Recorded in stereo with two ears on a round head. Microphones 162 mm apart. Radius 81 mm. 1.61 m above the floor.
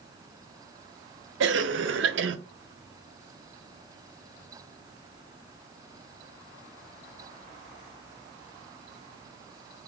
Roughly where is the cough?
Right.